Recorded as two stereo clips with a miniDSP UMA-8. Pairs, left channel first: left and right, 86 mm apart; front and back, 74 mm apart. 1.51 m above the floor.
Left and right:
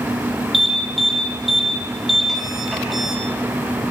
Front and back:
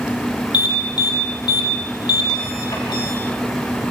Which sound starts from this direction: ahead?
An alarm, at 0.5 s.